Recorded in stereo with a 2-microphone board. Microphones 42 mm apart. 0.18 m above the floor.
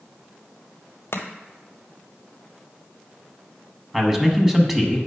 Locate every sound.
1.1 s chopping: 85° left, 0.9 m
3.9 s a man speaking: 10° right (ahead or behind), 1.0 m